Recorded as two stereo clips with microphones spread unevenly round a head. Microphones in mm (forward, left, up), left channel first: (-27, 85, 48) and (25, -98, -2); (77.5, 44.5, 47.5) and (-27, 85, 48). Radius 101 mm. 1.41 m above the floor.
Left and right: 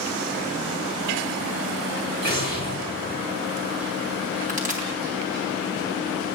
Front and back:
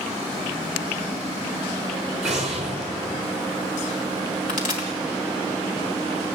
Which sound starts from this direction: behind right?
An explosion, at 2.2 s.